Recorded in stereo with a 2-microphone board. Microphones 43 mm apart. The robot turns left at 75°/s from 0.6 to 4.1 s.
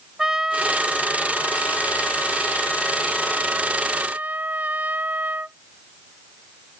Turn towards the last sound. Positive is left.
turn(degrees=-60)